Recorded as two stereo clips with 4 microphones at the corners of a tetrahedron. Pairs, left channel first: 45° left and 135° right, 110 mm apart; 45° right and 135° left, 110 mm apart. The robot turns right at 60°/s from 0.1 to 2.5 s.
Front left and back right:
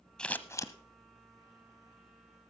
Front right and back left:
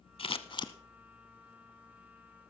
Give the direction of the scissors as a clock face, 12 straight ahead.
1 o'clock.